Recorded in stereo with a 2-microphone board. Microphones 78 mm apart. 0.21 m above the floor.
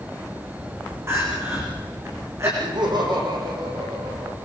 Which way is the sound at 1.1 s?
35° right (ahead or behind).